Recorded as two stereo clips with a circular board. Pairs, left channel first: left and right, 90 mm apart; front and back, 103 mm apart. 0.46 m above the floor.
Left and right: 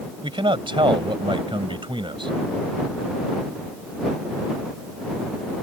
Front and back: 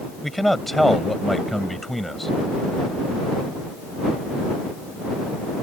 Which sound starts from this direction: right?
A man speaking, at 0.2 s.